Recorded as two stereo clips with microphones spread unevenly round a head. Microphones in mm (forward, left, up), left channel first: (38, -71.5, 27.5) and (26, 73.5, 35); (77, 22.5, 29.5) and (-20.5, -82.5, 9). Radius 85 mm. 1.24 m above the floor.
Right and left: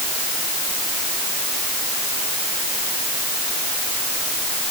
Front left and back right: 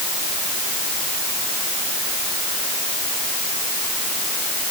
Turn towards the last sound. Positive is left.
No sound to turn to.